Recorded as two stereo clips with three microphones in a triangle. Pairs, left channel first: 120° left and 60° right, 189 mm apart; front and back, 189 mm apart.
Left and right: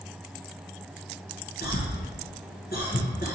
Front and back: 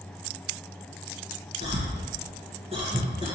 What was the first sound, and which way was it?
A cough, 130° left.